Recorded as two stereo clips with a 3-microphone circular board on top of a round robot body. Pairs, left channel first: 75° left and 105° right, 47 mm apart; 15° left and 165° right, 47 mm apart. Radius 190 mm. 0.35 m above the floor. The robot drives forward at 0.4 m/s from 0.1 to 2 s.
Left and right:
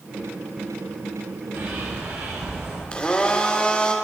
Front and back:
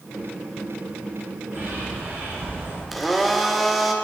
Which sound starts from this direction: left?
A blender, at 2.9 s.